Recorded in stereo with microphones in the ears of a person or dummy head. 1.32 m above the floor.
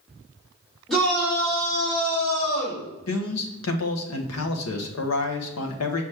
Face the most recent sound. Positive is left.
turn(degrees=85)